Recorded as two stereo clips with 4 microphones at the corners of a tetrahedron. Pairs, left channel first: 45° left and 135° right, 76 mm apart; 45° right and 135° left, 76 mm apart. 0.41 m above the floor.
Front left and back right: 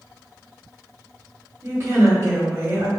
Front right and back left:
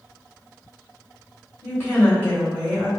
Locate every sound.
1.6 s a woman speaking: 100° right, 1.9 m